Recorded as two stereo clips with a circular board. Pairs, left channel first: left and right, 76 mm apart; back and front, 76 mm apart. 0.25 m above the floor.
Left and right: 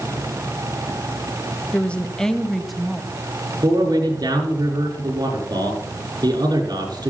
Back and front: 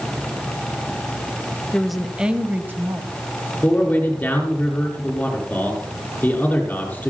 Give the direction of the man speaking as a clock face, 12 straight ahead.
4 o'clock.